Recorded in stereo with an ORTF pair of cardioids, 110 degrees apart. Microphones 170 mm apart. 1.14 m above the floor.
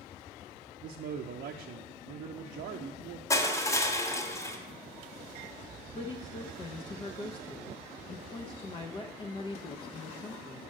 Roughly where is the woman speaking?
Ahead left.